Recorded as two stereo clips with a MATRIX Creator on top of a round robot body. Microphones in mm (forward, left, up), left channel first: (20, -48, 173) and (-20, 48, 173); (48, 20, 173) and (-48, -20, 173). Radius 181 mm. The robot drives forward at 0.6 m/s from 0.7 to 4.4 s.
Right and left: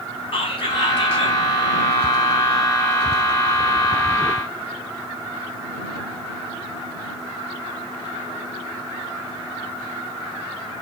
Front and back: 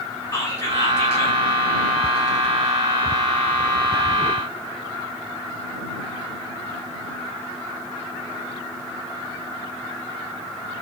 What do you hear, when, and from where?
0.3 s whispering: 35° right, 2.5 m; by 1.4 s 40° right, 1.9 m